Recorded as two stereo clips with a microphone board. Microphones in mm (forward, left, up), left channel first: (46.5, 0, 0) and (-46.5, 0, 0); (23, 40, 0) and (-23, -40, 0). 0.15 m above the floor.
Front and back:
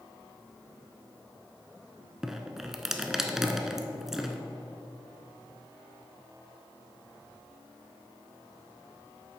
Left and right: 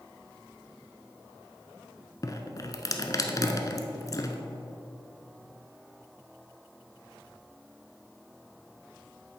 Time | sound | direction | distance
2.2 | dripping | 95° left | 0.7 m